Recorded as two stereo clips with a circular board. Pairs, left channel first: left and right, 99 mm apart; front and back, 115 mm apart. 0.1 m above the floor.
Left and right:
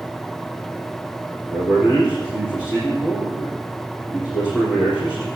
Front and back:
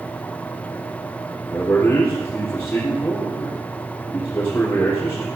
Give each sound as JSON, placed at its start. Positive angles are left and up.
{"t": 1.5, "sound": "a man speaking", "azimuth_deg": 65, "distance_m": 4.5}